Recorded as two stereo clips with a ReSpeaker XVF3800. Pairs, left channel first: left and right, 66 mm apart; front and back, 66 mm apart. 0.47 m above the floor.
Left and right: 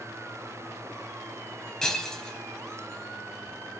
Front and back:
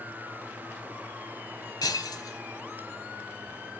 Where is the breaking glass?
10° left, 1.8 m.